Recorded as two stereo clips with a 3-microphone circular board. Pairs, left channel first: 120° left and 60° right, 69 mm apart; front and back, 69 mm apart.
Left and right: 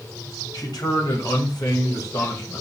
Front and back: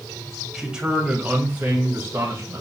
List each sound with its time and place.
0.5 s a man speaking: 100° left, 2.5 m; by 2.6 s 135° left, 2 m